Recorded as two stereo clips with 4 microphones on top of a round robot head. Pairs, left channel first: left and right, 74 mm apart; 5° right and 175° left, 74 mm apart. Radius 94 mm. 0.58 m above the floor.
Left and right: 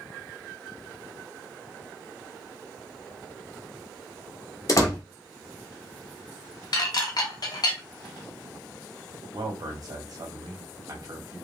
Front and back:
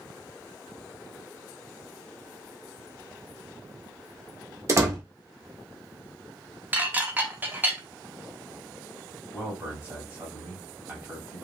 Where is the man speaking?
120° right, 1.7 m.